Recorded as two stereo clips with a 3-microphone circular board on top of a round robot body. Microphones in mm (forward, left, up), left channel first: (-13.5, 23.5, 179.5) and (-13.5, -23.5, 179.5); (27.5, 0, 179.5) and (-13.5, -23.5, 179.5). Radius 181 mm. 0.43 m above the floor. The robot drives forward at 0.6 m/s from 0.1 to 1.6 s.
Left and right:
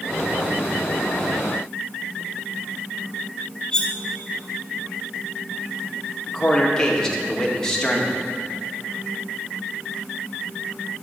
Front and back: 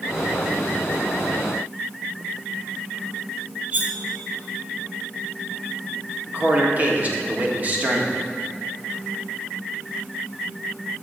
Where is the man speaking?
165° left, 1.9 m.